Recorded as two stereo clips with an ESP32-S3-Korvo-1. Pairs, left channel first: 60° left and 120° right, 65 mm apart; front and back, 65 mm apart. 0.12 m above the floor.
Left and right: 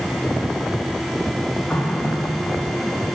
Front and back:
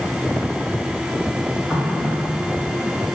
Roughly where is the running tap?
Behind left.